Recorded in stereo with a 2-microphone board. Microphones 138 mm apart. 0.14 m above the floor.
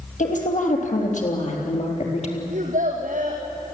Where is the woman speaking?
65° left (ahead or behind), 4.5 m; by 2.4 s 50° left (ahead or behind), 3.5 m.